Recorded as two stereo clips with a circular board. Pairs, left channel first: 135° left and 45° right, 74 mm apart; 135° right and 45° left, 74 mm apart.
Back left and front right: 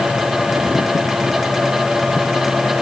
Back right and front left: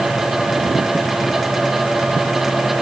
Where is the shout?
No shout in this recording.